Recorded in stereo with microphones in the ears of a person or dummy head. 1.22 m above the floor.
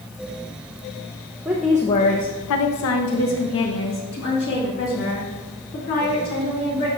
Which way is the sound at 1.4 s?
10° right (ahead or behind).